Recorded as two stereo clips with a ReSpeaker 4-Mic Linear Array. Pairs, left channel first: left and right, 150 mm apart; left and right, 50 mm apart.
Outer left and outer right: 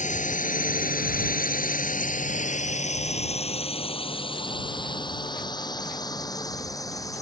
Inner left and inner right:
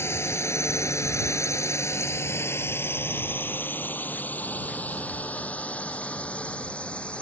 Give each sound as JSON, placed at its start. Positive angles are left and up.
{"t": 0.0, "sound": "a drone", "side_deg": 55}